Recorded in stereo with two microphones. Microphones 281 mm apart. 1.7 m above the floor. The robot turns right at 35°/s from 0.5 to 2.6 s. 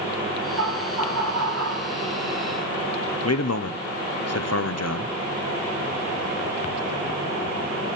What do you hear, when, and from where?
0.6 s laughter: 100° right, 4 m; by 1.9 s 55° right, 4 m
3.2 s a man speaking: 60° left (ahead or behind), 0.8 m